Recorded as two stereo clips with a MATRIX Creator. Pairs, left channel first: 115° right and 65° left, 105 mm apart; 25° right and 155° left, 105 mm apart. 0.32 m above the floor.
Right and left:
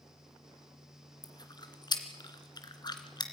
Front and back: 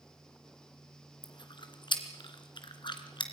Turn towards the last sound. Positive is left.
turn(degrees=-65)